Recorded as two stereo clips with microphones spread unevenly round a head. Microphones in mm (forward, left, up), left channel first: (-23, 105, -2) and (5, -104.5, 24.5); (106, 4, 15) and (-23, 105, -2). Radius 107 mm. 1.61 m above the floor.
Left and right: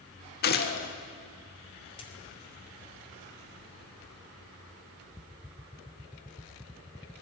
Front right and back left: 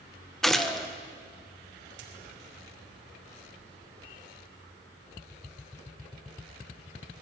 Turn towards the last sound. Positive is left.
turn(degrees=165)